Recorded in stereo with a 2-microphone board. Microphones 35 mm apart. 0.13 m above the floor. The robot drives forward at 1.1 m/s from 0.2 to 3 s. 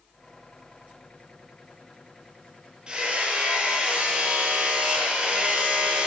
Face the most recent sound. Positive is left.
turn(degrees=-25)  # may be behind; listen again after turning